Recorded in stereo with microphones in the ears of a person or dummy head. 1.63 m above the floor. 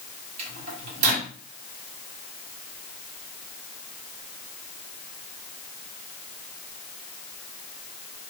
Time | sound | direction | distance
0.4 | a microwave | 45° right (ahead or behind) | 1.4 m